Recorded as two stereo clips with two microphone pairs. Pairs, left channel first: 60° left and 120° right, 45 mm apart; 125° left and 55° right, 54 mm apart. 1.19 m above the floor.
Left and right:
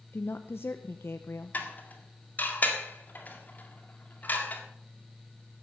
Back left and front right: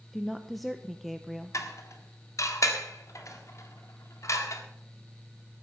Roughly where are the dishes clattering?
Left.